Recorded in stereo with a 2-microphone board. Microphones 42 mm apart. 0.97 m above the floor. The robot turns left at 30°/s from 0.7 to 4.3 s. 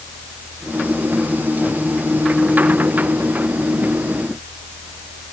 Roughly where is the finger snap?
No finger snap in this recording.